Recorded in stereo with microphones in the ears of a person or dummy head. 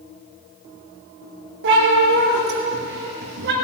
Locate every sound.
1.6 s a cat meowing: 70° right (ahead or behind), 4.5 m; by 3.5 s 65° right (ahead or behind), 3.5 m